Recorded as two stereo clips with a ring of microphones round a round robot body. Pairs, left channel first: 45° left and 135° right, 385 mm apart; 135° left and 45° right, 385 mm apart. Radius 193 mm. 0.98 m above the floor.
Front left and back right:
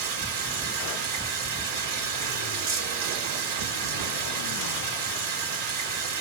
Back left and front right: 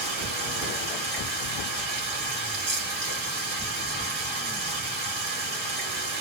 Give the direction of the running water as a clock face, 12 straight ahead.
4 o'clock.